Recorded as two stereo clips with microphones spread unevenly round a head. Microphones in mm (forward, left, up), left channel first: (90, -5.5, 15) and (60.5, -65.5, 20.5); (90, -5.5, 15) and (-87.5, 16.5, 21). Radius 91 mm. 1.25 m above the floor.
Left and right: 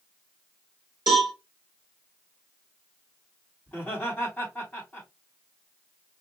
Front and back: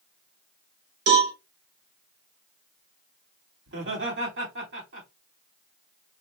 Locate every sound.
1.1 s a cowbell: 160° right, 3 m
3.7 s laughter: 150° left, 3.5 m